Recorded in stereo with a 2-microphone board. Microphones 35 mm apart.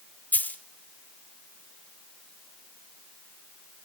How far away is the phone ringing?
No phone ringing in this recording.